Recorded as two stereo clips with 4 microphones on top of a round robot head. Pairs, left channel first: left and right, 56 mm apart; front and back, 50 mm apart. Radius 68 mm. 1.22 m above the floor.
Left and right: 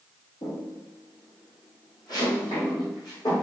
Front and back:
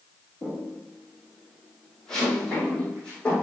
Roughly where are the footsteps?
Left.